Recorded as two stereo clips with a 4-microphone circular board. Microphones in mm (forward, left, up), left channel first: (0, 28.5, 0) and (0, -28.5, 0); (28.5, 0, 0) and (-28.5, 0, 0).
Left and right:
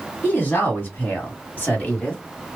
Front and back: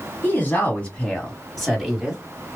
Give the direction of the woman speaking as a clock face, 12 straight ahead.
10 o'clock.